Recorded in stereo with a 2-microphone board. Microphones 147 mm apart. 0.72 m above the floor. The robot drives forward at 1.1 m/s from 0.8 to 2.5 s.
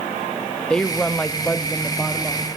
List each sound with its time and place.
0.7 s a woman speaking: 5° left (ahead or behind), 0.7 m